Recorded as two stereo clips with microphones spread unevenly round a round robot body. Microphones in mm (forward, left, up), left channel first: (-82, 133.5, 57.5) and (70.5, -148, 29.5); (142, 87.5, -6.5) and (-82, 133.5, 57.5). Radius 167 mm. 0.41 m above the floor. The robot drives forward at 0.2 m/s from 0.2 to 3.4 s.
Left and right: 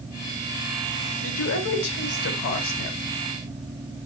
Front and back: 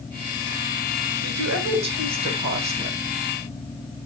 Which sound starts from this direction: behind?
A woman speaking, at 1.2 s.